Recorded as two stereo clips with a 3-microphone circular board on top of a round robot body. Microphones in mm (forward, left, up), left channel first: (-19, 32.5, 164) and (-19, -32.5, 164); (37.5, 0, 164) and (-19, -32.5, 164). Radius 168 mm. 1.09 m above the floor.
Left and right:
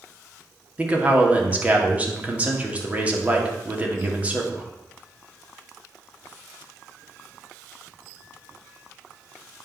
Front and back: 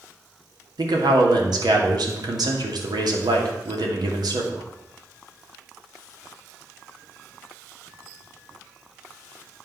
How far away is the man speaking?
About 2.5 m.